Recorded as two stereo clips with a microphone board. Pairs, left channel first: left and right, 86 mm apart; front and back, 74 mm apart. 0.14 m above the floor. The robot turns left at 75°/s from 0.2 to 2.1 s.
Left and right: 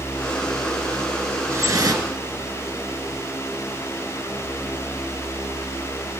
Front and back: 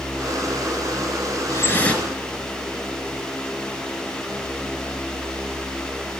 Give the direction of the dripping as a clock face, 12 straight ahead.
1 o'clock.